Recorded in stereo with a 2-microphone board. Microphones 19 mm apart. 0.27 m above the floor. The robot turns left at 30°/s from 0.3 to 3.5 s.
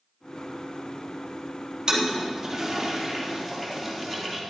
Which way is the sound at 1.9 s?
40° right (ahead or behind).